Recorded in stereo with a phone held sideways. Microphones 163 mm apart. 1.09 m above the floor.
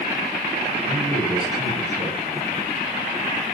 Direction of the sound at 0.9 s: 30° right (ahead or behind).